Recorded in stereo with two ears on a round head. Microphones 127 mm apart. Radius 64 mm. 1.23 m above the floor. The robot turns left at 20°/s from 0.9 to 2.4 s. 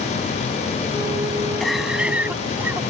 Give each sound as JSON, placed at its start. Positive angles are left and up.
{"t": 1.6, "sound": "a cough", "side_deg": 0}